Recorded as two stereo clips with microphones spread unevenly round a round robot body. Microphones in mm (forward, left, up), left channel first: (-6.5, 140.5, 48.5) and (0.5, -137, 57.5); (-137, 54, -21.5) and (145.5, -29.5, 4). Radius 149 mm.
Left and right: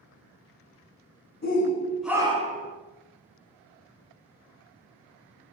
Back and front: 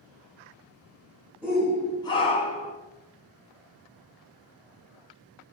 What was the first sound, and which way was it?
A shout, 75° left.